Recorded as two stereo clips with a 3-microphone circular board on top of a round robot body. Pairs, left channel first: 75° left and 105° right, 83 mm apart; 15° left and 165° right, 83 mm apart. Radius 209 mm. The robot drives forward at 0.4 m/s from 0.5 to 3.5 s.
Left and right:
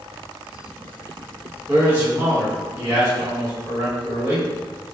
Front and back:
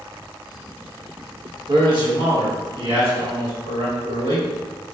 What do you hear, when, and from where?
1.7 s a man speaking: 170° right, 1.5 m; by 4.5 s 175° right, 2 m